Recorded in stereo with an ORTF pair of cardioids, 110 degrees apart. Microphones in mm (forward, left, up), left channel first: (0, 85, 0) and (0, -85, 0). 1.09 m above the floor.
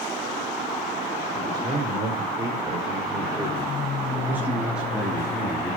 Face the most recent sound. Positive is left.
turn(degrees=15)